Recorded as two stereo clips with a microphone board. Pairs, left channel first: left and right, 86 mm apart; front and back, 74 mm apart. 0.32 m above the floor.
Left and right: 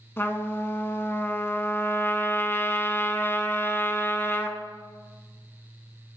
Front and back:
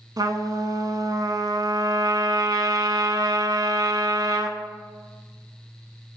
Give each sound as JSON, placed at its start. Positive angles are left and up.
{"t": 0.2, "sound": "a trumpet", "azimuth_deg": 150, "distance_m": 0.9}